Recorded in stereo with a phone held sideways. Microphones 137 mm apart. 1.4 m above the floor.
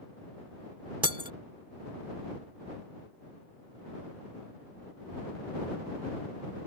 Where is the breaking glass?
35° right (ahead or behind).